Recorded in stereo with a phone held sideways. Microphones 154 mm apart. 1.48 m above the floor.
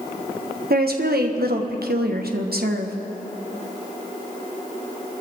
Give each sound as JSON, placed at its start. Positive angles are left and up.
{"t": 0.7, "sound": "a woman speaking", "side_deg": -85, "distance_m": 1.5}